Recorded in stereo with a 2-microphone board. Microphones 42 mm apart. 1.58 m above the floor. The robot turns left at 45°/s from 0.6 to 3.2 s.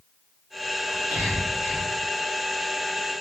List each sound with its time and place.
0.9 s whispering: 30° right (ahead or behind), 1.8 m; by 1.9 s 75° right (ahead or behind), 1.8 m